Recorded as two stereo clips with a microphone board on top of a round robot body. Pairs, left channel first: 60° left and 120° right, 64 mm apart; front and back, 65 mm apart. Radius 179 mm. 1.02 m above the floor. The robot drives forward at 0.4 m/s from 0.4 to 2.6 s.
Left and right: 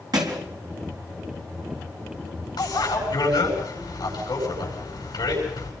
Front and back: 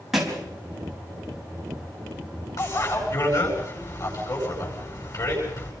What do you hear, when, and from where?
0.1 s a thud: 95° right, 4 m
2.6 s a bicycle bell: 35° left, 9 m